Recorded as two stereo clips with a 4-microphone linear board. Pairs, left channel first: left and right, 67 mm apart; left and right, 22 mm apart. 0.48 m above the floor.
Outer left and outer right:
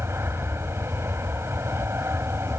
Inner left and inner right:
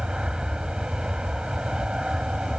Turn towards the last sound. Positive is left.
turn(degrees=-40)  # may be behind; listen again after turning